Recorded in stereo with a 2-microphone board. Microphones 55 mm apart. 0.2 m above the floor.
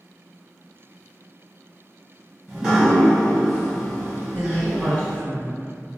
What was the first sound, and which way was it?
Dripping, 15° right (ahead or behind).